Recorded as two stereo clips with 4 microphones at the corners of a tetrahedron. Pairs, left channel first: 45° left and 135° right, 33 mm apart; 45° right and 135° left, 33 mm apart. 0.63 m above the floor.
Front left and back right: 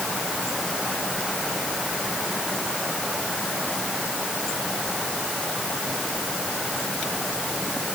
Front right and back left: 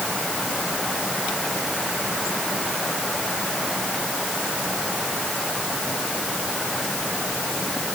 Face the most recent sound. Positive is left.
No sound to turn to.